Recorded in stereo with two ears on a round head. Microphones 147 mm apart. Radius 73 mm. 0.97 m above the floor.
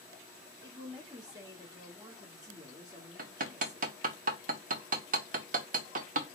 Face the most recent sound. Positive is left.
turn(degrees=-50)  # may be behind; listen again after turning